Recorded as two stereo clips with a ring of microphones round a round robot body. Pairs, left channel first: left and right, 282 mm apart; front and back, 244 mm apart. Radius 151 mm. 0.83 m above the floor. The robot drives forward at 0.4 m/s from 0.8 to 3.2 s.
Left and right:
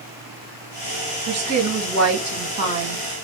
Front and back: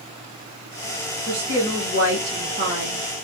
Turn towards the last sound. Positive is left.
turn(degrees=-130)